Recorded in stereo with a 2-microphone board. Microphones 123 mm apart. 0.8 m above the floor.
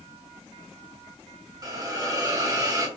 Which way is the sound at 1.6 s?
30° right (ahead or behind).